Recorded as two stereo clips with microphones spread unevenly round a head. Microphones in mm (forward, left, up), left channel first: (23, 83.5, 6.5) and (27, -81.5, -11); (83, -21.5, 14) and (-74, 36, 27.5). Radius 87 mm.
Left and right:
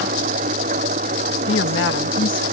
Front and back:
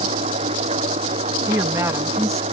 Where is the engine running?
145° right.